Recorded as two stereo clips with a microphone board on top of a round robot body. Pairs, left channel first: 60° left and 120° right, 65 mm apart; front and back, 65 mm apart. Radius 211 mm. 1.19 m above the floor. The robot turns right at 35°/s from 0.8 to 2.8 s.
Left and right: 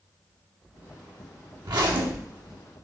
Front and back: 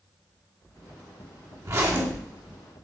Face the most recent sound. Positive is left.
turn(degrees=-95)